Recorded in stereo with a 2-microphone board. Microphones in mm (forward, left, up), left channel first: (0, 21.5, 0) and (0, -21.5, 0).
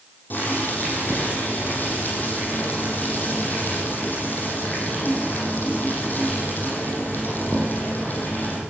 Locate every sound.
0.3 s boiling: 50° left (ahead or behind), 9 m